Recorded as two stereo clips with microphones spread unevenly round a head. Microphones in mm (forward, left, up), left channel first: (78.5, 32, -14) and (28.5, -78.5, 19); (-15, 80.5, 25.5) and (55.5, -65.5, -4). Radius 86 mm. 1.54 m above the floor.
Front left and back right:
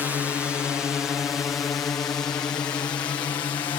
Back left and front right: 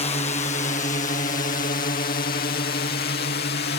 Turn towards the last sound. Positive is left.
turn(degrees=130)